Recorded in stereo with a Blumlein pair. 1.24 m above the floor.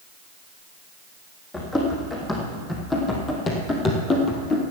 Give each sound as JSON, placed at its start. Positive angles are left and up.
{"t": 1.5, "sound": "running footsteps", "azimuth_deg": 10, "distance_m": 4.0}